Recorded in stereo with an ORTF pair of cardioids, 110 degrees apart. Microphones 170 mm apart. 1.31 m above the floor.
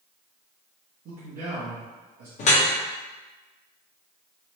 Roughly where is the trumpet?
No trumpet in this recording.